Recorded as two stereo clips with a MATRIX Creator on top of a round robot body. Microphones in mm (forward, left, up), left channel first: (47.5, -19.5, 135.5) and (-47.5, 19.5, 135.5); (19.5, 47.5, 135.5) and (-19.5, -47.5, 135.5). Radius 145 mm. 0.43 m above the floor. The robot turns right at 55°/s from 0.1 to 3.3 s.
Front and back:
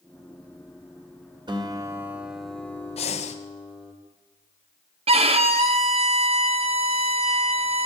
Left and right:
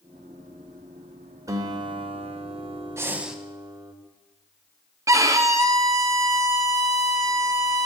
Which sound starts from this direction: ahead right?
Breathing, at 3.0 s.